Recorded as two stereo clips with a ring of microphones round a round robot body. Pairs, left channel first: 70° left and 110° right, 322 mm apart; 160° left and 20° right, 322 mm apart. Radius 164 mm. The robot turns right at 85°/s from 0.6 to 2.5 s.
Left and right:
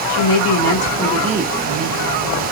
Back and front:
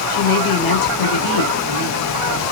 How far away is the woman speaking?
About 1.6 m.